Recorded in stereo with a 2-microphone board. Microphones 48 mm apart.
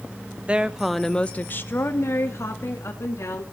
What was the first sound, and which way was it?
A woman speaking, 20° right (ahead or behind).